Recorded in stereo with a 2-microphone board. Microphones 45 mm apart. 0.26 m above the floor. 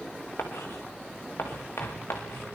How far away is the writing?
About 4 m.